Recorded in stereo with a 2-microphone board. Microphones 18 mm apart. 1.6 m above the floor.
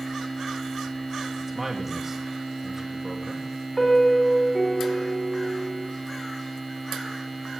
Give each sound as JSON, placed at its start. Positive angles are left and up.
{"t": 1.4, "sound": "a man speaking", "side_deg": -25, "distance_m": 2.0}
{"t": 3.8, "sound": "a piano", "side_deg": 10, "distance_m": 4.0}